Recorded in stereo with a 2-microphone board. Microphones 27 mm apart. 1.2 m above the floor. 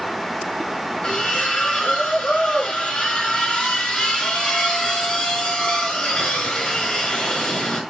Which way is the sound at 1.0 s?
40° left (ahead or behind).